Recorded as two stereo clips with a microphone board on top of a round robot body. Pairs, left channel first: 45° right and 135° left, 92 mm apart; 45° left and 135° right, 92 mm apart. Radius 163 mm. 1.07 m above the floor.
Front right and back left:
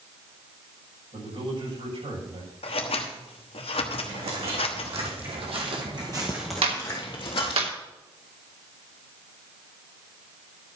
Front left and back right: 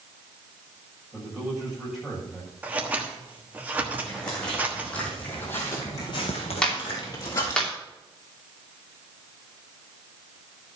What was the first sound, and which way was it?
A man speaking, 140° left.